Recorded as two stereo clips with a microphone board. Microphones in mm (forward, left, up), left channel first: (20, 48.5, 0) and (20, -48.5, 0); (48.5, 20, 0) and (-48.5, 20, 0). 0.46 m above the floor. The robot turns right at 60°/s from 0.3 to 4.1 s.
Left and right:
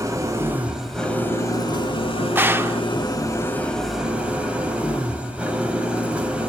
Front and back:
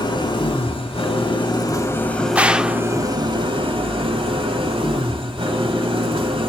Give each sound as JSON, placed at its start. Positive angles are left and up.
{"t": 0.0, "sound": "an engine running", "azimuth_deg": -35, "distance_m": 1.9}
{"t": 2.4, "sound": "a gunshot", "azimuth_deg": -125, "distance_m": 0.5}